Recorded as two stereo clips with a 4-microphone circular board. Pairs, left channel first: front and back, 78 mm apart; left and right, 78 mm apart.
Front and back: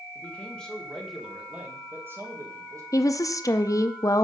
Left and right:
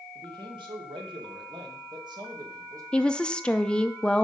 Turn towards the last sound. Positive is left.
turn(degrees=15)